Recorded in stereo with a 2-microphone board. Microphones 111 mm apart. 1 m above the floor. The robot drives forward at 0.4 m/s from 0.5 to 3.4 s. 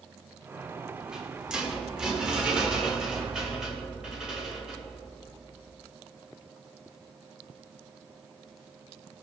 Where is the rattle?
5° right (ahead or behind), 2.5 m.